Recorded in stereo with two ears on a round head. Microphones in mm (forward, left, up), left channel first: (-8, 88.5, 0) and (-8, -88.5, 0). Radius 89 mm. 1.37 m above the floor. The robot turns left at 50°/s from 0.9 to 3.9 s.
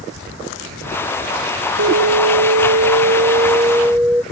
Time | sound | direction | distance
1.8 | an alarm | 70° right | ?